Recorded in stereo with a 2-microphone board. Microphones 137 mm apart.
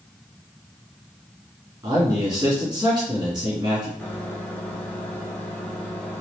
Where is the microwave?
10° left (ahead or behind), 1.1 m.